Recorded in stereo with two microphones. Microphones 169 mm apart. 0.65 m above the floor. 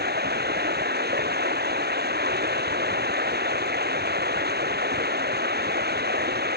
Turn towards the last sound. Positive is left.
turn(degrees=-70)  # may be behind; listen again after turning